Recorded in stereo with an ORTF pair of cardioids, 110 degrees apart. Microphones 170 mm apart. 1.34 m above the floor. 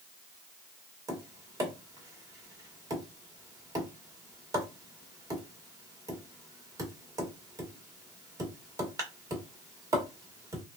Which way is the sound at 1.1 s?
20° right.